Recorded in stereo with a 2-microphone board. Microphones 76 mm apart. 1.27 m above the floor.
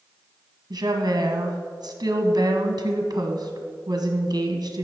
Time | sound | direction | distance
0.7 | a woman speaking | 70° right (ahead or behind) | 1.1 m